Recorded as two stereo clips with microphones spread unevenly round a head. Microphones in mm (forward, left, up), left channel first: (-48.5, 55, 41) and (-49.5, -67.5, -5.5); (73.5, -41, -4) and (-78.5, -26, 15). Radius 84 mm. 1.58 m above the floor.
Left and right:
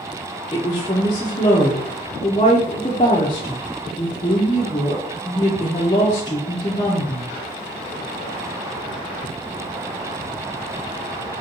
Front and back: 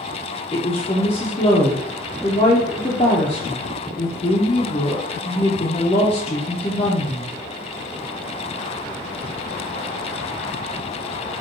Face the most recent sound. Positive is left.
turn(degrees=55)